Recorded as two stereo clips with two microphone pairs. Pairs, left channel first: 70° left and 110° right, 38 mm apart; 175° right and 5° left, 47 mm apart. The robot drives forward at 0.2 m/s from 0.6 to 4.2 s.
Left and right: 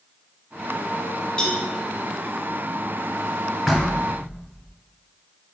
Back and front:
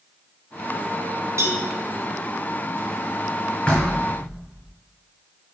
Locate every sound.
1.4 s a cowbell: 5° right, 0.9 m
3.7 s knocking: 165° left, 0.8 m; by 4.7 s 170° left, 0.8 m